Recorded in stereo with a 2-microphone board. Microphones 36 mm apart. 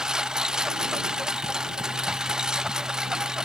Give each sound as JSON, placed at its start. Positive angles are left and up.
{"t": 0.0, "sound": "a lawn mower", "side_deg": -20}